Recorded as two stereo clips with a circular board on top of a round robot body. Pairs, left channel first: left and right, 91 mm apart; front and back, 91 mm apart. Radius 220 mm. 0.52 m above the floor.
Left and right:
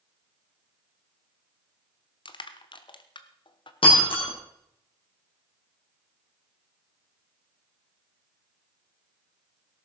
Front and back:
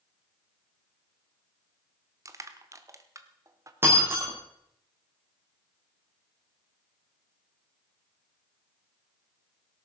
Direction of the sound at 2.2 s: 125° left.